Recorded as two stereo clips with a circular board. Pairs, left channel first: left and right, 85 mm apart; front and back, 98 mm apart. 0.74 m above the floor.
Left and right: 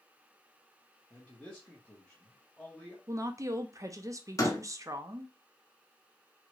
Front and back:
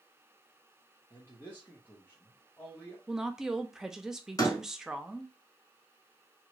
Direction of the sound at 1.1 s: 25° left.